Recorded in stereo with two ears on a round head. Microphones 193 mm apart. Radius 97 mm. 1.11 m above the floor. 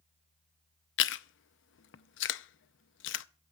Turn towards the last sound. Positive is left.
turn(degrees=60)  # may be behind; listen again after turning